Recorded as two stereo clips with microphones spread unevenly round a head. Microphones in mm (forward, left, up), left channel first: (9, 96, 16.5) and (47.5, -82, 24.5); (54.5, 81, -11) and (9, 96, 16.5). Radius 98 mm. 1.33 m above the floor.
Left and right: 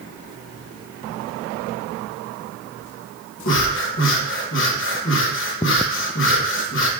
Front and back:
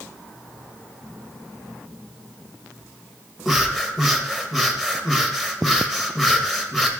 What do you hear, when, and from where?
3.5 s breathing: 85° left, 1.1 m